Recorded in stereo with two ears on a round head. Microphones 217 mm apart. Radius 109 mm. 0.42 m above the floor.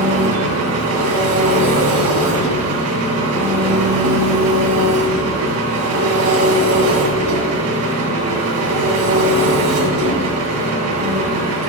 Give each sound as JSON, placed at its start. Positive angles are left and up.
{"t": 0.0, "sound": "an engine running", "side_deg": -70, "distance_m": 2.5}